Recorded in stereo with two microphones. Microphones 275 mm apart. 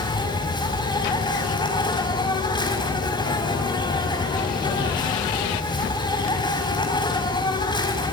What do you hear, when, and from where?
0.0 s an insect: 15° left (ahead or behind), 5.5 m